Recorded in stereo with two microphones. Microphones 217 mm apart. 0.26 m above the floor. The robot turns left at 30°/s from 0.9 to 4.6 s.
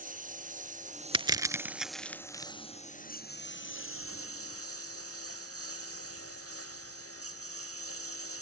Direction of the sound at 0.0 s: 35° right (ahead or behind).